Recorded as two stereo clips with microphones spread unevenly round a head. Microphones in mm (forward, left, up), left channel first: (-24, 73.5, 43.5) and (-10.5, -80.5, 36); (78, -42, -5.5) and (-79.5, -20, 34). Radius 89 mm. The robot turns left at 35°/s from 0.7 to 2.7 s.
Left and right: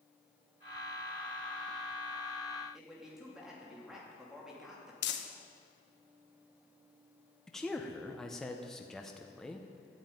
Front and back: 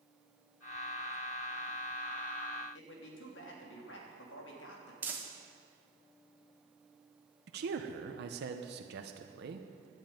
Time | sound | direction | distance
2.7 | a man speaking | 5° left | 3 m
5.0 | crumpling | 90° left | 1.2 m
7.5 | a man speaking | straight behind | 0.9 m